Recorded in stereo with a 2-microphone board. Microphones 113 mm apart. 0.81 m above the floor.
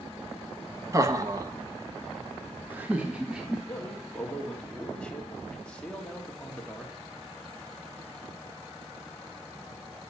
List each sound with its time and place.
0.9 s laughter: 30° right (ahead or behind), 1.2 m; by 3.6 s 5° right (ahead or behind), 1.5 m
3.7 s a man speaking: 10° left (ahead or behind), 1.8 m